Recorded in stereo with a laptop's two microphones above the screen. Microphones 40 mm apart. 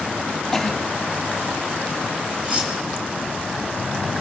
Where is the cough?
10° left (ahead or behind), 2.5 m.